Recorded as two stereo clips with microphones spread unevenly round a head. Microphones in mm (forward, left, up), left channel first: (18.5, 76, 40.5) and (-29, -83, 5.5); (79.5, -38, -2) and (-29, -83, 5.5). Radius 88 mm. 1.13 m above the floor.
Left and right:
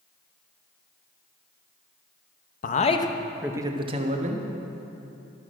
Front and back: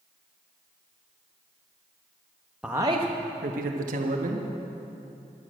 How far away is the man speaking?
About 1.0 m.